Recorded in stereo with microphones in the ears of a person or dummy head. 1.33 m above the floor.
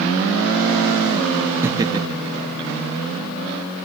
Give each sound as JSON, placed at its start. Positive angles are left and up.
{"t": 1.6, "sound": "laughter", "side_deg": -5, "distance_m": 0.6}